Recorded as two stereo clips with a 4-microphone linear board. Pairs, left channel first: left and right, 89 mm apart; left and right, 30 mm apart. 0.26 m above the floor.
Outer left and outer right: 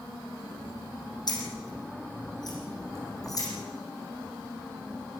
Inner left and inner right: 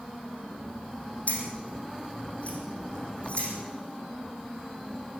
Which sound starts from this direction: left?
Keys jangling, at 1.3 s.